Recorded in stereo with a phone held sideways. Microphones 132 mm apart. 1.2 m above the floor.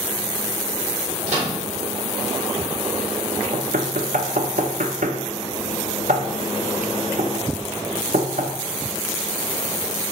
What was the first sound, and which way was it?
A microwave, 60° right (ahead or behind).